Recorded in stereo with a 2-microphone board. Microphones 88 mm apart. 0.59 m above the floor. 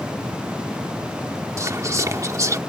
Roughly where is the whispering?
Right.